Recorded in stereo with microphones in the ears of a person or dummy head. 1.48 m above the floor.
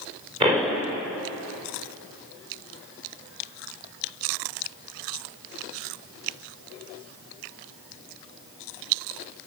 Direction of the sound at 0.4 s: 25° right (ahead or behind).